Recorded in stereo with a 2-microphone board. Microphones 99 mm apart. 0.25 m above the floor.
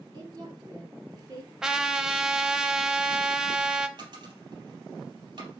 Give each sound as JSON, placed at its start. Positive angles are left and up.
{"t": 0.1, "sound": "a woman speaking", "side_deg": -40, "distance_m": 2.5}
{"t": 1.6, "sound": "a trumpet", "side_deg": -5, "distance_m": 0.7}
{"t": 4.0, "sound": "a dropped coin", "side_deg": -50, "distance_m": 3.0}